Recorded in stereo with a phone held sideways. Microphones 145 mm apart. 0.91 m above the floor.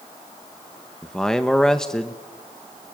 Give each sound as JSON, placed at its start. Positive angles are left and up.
{"t": 1.0, "sound": "a man speaking", "side_deg": 5, "distance_m": 0.9}